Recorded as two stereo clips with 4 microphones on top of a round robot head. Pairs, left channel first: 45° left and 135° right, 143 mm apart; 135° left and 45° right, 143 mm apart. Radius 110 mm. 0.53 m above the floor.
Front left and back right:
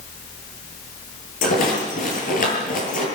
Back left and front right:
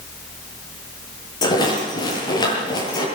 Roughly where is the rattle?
Left.